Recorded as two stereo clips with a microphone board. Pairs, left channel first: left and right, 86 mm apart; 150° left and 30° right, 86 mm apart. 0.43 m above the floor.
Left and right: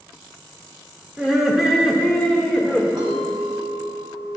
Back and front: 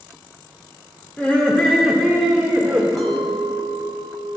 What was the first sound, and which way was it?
Laughter, 160° right.